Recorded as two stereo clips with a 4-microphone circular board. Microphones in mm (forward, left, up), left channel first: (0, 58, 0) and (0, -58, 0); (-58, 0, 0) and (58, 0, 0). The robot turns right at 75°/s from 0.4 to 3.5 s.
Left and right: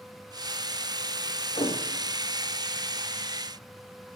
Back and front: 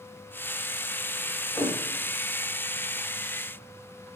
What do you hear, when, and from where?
1.6 s a thud: 110° left, 6 m; by 1.8 s 125° left, 6 m